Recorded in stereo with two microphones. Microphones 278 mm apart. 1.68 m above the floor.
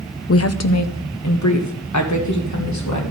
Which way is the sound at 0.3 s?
50° left (ahead or behind).